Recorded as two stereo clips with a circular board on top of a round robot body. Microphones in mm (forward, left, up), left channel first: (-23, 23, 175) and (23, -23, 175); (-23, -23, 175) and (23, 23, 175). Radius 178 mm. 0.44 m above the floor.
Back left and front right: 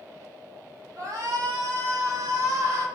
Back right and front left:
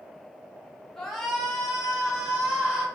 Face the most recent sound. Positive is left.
turn(degrees=-30)